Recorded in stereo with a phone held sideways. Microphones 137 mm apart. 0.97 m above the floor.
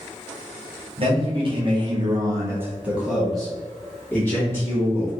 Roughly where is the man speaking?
Right.